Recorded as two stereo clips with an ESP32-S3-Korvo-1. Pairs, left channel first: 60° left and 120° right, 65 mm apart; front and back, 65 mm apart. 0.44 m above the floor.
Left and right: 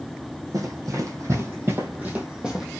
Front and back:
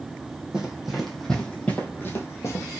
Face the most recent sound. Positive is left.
turn(degrees=-40)